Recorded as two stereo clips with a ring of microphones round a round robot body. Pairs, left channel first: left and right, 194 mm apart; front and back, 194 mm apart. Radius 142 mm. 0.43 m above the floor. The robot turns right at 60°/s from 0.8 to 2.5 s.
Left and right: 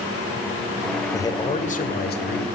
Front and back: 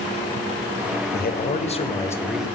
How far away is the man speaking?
About 1.9 m.